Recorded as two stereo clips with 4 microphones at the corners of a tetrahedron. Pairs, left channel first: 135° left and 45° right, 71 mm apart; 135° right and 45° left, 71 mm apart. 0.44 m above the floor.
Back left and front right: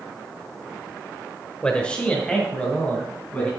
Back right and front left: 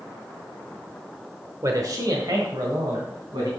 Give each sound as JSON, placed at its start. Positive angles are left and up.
{"t": 1.6, "sound": "a man speaking", "azimuth_deg": 65, "distance_m": 1.2}